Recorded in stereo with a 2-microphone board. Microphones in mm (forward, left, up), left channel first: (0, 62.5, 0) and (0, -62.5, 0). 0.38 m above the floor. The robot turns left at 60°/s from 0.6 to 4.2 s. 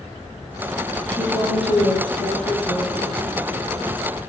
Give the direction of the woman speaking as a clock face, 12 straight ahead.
6 o'clock.